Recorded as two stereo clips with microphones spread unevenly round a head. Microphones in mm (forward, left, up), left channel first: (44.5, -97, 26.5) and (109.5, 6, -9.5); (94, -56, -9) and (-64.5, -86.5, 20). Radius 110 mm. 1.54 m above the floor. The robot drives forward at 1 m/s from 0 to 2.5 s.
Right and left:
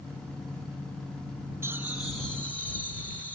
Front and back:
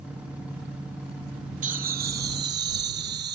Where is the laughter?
140° left; by 3.4 s 155° left.